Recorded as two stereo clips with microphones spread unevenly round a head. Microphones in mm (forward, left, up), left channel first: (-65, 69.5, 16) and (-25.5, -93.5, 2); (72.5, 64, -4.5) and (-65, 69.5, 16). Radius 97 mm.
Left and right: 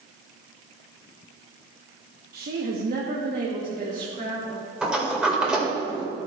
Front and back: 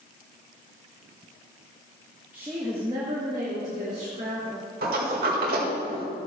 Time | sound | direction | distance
2.3 | a woman speaking | 95° right | 0.9 m
4.8 | a sliding door | 165° right | 1.8 m